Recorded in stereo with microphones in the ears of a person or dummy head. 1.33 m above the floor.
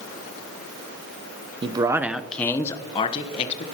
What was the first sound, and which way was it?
A man speaking, 25° right (ahead or behind).